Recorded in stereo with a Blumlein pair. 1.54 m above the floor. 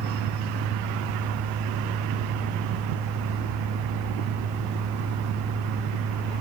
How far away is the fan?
About 0.8 m.